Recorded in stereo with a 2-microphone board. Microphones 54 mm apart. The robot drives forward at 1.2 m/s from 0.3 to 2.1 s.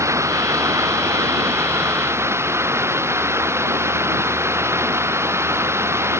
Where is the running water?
60° right (ahead or behind); by 6.2 s 50° right (ahead or behind).